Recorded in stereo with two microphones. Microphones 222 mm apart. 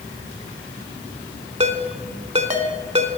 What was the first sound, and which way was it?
A ringtone, 30° right (ahead or behind).